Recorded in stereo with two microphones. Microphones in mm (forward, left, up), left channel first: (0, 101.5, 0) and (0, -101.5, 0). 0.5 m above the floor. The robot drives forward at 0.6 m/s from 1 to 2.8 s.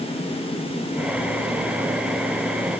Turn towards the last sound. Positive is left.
No sound to turn to.